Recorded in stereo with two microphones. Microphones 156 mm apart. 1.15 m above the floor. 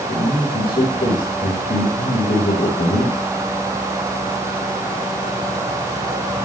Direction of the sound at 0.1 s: 90° left.